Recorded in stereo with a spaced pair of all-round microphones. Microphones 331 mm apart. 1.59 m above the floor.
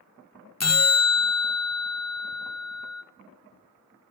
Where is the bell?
50° left (ahead or behind), 0.6 m.